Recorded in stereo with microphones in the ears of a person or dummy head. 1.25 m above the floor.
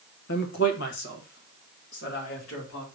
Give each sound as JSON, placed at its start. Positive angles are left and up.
{"t": 0.3, "sound": "a man speaking", "side_deg": 55, "distance_m": 0.7}